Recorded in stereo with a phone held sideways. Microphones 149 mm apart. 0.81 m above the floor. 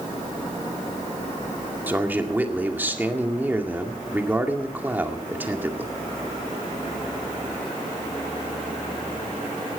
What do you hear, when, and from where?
1.9 s a man speaking: 15° right (ahead or behind), 2 m